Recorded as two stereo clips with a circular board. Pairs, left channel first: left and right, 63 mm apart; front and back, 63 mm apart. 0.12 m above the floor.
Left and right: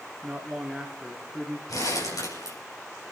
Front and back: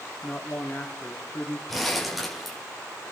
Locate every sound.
0.2 s a man speaking: 15° right, 1.8 m
1.7 s crumpling: 90° left, 6 m